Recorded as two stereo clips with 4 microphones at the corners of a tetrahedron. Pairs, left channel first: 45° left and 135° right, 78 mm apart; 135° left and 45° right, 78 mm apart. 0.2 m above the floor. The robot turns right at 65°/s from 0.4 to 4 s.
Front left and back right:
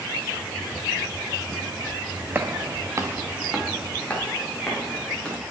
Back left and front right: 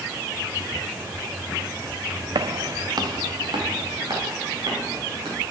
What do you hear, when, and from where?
2.4 s footsteps: 70° right, 0.6 m; by 5.4 s 35° right, 4.5 m